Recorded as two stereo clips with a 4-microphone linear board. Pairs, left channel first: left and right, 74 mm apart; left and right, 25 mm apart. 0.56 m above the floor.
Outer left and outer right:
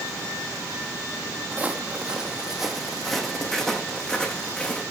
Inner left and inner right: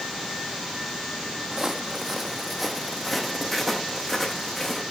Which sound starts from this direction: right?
Footsteps, at 1.5 s.